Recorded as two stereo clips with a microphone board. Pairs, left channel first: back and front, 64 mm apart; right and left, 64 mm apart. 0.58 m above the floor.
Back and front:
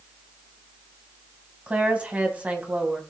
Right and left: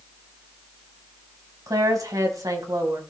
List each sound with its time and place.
1.7 s a woman speaking: 70° left, 3.5 m